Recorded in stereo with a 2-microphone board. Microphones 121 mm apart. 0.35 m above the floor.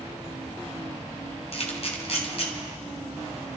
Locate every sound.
1.5 s a camera shutter: 55° left (ahead or behind), 2.5 m